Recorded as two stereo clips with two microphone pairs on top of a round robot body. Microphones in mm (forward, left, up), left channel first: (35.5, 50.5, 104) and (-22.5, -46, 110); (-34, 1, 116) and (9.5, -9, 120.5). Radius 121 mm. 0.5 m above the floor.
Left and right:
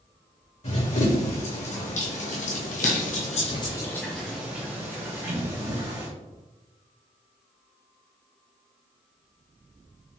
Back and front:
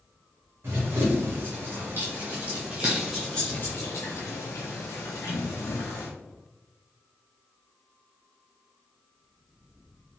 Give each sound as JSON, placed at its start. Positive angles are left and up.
{"t": 0.6, "sound": "running footsteps", "azimuth_deg": 25, "distance_m": 1.8}